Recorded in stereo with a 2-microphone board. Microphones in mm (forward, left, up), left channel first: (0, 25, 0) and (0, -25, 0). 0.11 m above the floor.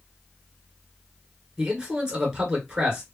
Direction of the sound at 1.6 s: 15° right (ahead or behind).